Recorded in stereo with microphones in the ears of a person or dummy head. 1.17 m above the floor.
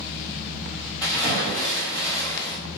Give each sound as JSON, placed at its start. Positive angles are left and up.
{"t": 1.0, "sound": "a splash", "side_deg": 20, "distance_m": 1.1}